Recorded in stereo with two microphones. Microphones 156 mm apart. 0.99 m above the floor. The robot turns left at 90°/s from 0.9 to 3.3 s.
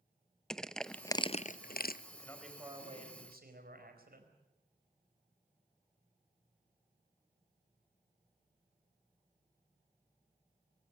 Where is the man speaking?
30° left, 4.5 m; by 4.3 s 75° right, 4.5 m.